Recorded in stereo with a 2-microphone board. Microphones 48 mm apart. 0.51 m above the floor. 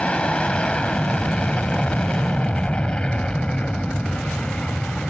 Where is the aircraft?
20° left (ahead or behind).